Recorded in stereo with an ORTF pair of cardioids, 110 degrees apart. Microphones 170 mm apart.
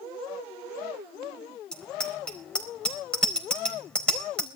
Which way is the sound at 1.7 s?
5° left.